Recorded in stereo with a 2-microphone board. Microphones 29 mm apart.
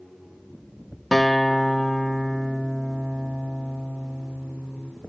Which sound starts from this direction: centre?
A guitar, at 1.1 s.